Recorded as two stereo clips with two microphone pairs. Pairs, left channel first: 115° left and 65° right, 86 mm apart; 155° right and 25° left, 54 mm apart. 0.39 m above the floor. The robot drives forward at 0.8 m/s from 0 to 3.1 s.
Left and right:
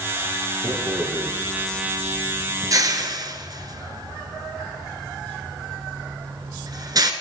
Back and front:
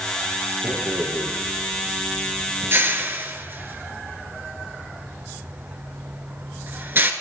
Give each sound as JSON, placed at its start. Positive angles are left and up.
{"t": 0.6, "sound": "a rattle", "azimuth_deg": -10, "distance_m": 3.5}